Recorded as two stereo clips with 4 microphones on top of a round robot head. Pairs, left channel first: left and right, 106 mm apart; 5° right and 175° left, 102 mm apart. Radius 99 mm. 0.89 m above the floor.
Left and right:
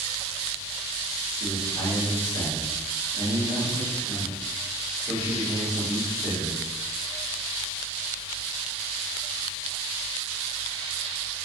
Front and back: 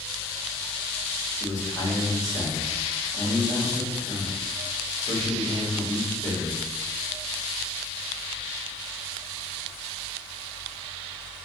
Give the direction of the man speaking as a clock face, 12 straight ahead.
10 o'clock.